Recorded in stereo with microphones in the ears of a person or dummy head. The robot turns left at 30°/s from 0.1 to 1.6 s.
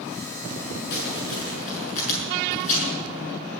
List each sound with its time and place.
0.9 s crumpling: 65° left (ahead or behind), 7 m; by 2.9 s 45° left (ahead or behind), 7 m